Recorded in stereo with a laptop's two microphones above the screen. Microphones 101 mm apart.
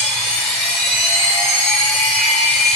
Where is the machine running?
10° left (ahead or behind), 4.5 m.